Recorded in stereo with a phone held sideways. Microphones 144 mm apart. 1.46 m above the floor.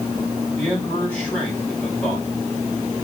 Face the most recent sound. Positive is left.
turn(degrees=15)  # may be behind; listen again after turning